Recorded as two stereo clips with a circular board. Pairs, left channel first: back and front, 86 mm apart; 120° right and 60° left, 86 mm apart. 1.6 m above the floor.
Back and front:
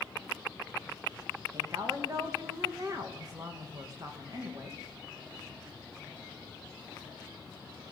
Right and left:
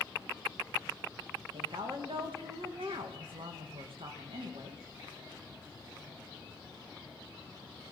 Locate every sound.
1.5 s a woman speaking: 50° left, 2 m